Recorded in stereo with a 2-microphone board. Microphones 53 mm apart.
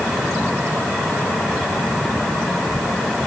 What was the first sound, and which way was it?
Only background noise.